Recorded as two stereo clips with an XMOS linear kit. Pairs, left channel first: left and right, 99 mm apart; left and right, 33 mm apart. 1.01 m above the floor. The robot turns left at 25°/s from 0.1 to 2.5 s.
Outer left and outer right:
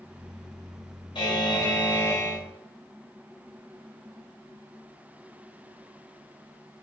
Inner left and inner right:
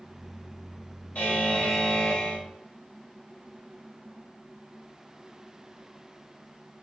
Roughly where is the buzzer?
Ahead left.